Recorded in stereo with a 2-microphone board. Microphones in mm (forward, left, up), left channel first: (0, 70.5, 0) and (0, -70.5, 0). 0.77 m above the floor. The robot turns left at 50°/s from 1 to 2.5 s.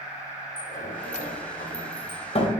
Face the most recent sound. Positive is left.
turn(degrees=40)  # may be behind; listen again after turning